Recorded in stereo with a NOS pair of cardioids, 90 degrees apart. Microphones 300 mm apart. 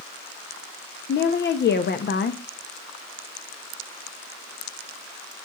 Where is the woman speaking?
35° left, 0.8 m.